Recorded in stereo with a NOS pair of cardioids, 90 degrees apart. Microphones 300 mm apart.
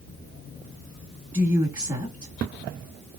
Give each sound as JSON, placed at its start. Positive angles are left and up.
{"t": 1.3, "sound": "a woman speaking", "azimuth_deg": -15, "distance_m": 2.0}